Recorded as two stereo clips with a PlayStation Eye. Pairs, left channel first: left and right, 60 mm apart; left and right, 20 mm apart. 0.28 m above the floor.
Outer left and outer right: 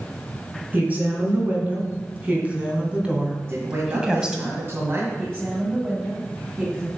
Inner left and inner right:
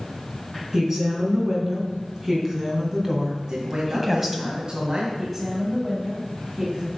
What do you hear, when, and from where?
0.7 s a woman speaking: 30° right (ahead or behind), 3.5 m; by 4.4 s 10° right (ahead or behind), 1.6 m
3.4 s a man speaking: 45° right (ahead or behind), 2 m
5.2 s a woman speaking: 25° right (ahead or behind), 2.5 m